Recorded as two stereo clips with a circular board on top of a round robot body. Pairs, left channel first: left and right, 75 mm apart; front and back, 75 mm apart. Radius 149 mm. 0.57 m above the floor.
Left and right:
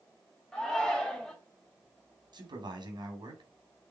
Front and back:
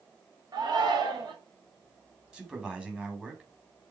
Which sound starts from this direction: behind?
A shout, at 0.5 s.